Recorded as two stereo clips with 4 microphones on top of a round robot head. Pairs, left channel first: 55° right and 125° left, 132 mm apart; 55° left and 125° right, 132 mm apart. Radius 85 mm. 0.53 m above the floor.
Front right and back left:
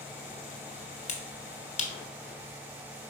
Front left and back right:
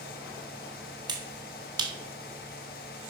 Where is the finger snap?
70° right, 1.5 m.